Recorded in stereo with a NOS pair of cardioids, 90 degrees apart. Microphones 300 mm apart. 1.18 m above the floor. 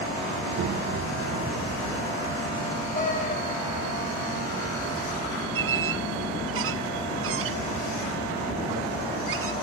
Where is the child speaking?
60° right, 2.5 m; by 2.9 s 40° right, 4.5 m.